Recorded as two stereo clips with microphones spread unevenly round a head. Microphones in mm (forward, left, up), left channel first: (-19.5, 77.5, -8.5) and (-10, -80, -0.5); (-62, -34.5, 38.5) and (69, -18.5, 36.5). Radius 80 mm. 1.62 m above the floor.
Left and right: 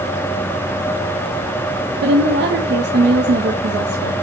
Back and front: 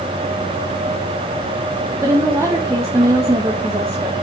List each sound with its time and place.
2.0 s a woman speaking: 60° right, 1.7 m